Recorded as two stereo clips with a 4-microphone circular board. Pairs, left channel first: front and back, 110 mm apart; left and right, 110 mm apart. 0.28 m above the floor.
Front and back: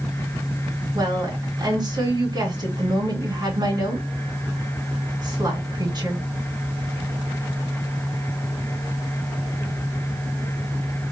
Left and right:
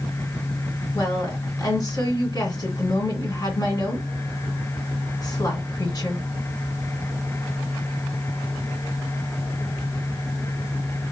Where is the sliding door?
No sliding door in this recording.